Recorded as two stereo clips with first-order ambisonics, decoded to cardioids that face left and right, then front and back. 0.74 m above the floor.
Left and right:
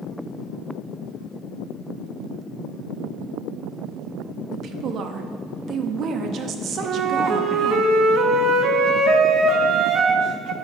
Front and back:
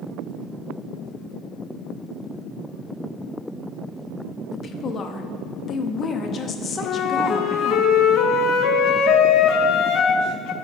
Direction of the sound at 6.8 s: 40° right.